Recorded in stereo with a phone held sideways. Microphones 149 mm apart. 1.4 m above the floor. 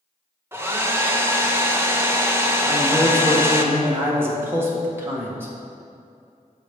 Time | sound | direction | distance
0.5 | a hair dryer | 15° right (ahead or behind) | 0.6 m
2.6 | a man speaking | 15° right (ahead or behind) | 1.4 m